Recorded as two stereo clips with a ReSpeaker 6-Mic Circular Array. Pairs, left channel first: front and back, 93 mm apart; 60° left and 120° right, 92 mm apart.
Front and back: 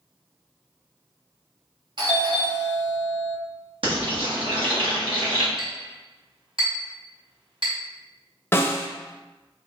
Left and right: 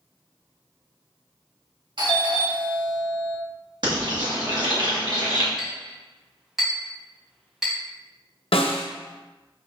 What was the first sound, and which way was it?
A doorbell, 145° right.